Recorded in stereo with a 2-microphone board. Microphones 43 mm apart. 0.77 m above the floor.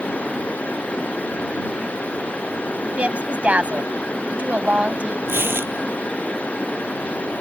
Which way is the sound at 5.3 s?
65° right (ahead or behind).